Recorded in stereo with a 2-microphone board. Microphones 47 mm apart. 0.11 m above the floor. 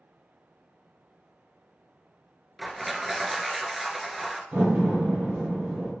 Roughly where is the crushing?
Centre.